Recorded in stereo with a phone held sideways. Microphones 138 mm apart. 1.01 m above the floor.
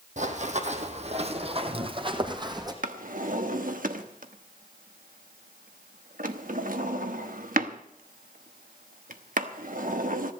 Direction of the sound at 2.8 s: 90° right.